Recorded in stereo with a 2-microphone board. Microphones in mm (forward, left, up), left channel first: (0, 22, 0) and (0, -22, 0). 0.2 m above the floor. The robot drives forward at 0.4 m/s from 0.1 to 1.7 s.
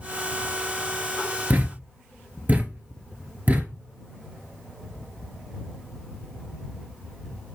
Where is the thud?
50° right (ahead or behind), 1.0 m; by 3.8 s 45° right (ahead or behind), 1.1 m.